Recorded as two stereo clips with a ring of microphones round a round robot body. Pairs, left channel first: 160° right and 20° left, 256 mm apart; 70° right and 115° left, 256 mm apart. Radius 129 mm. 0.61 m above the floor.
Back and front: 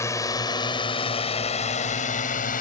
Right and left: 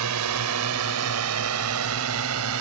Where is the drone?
125° left; by 2.6 s 145° left.